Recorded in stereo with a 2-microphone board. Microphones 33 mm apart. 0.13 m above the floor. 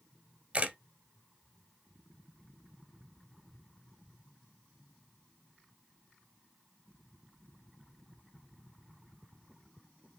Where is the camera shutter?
35° right (ahead or behind), 1.2 m.